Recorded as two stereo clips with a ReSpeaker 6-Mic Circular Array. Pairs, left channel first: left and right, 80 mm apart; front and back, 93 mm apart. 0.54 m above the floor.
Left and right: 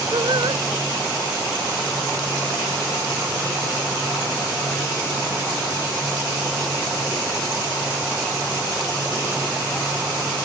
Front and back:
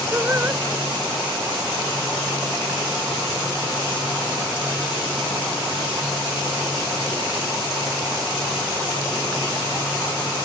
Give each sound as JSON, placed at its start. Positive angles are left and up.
{"t": 0.1, "sound": "singing", "azimuth_deg": -115}